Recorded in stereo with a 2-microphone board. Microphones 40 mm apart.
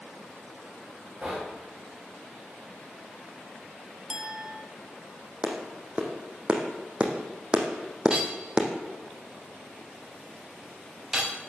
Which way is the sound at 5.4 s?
20° right (ahead or behind).